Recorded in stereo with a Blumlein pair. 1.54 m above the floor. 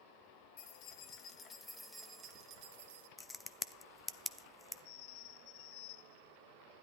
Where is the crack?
10° left, 0.6 m.